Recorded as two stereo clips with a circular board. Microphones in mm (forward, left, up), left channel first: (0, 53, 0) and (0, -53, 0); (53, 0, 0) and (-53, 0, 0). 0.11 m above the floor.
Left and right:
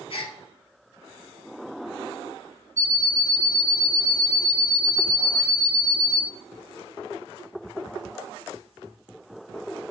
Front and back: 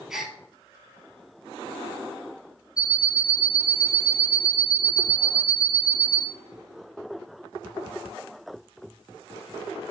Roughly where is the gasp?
Left.